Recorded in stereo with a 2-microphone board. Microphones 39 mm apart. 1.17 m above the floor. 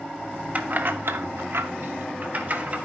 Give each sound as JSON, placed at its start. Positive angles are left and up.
{"t": 0.6, "sound": "keys jangling", "side_deg": -35, "distance_m": 1.3}